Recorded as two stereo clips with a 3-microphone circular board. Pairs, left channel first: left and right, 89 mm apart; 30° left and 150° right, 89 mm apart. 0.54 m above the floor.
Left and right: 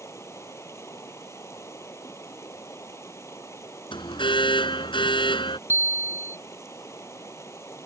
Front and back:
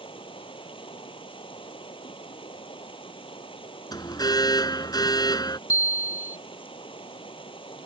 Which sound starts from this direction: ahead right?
A bicycle bell, at 5.7 s.